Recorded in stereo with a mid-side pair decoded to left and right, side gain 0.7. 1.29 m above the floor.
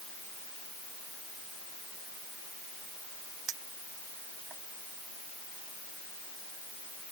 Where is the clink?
40° right.